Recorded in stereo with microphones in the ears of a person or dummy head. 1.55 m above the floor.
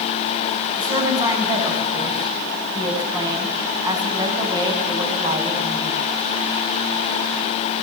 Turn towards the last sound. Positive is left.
turn(degrees=-25)  # may be behind; listen again after turning